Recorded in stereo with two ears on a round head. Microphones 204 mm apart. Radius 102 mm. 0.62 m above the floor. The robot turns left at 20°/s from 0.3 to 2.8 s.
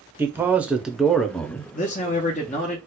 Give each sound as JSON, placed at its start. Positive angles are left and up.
{"t": 0.2, "sound": "a man speaking", "side_deg": -10, "distance_m": 0.6}
{"t": 1.7, "sound": "a man speaking", "side_deg": 35, "distance_m": 0.7}